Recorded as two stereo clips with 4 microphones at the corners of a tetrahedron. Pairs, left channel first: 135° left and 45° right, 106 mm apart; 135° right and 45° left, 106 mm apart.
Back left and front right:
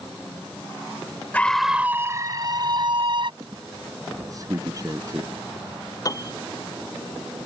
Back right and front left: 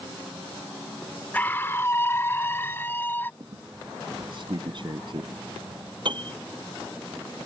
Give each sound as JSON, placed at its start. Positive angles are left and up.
{"t": 1.3, "sound": "a scream", "azimuth_deg": 180}
{"t": 3.4, "sound": "a squeak", "azimuth_deg": 10}
{"t": 6.0, "sound": "a piano", "azimuth_deg": 80}